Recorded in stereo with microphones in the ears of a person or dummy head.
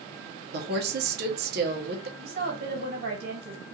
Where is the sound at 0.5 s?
55° right (ahead or behind), 1.1 m.